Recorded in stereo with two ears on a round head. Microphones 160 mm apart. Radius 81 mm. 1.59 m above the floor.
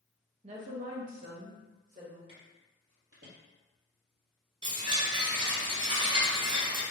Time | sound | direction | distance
0.4 | a woman speaking | 35° right (ahead or behind) | 0.6 m
2.3 | footsteps | 30° right (ahead or behind) | 2.0 m
4.6 | a chime | 25° right (ahead or behind) | 0.7 m